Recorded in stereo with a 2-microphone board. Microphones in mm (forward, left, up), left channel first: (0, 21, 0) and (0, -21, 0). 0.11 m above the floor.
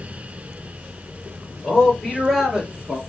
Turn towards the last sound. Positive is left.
turn(degrees=-20)  # may be behind; listen again after turning